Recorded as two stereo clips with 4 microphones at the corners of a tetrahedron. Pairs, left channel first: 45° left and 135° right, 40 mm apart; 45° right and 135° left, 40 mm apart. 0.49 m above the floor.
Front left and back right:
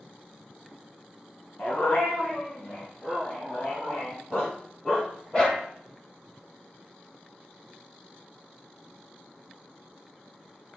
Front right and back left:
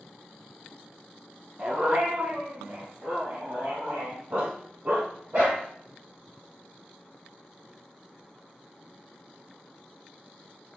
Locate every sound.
1.6 s a dog barking: 90° left, 2 m; by 5.6 s 115° left, 6 m